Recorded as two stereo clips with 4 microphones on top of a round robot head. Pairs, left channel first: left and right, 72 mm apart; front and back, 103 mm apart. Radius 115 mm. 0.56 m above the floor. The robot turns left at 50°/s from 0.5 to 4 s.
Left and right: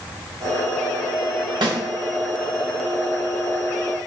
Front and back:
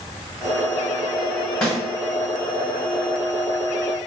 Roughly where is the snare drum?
Right.